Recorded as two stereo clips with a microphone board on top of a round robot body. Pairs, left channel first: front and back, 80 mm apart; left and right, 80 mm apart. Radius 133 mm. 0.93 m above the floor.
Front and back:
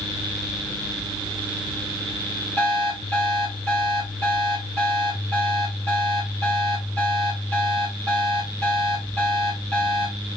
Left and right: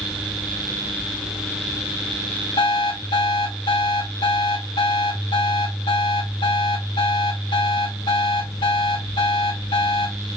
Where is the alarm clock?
75° left, 3.5 m.